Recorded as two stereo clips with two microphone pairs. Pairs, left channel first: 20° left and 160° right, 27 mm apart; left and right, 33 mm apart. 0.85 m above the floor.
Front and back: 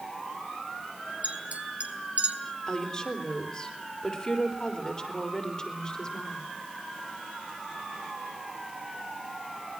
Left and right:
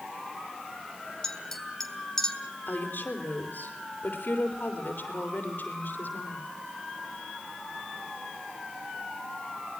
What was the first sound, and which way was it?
A clink, 170° left.